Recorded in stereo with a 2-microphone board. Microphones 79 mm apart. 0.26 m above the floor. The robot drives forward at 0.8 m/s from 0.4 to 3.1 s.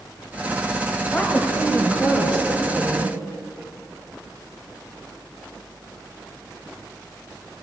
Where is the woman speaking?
20° left (ahead or behind), 1.0 m; by 3.2 s 10° left (ahead or behind), 1.6 m.